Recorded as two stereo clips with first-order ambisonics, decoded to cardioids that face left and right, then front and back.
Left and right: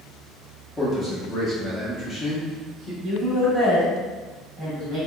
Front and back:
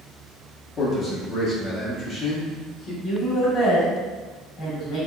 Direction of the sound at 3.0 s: 55° right.